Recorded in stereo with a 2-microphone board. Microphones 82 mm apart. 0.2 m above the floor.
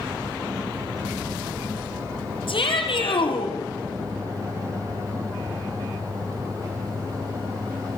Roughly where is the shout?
Left.